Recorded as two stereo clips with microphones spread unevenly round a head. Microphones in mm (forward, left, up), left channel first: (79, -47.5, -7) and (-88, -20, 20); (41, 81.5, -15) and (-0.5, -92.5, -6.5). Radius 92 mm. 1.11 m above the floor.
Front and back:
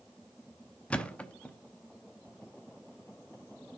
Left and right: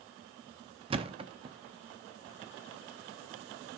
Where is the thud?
100° right, 0.6 m.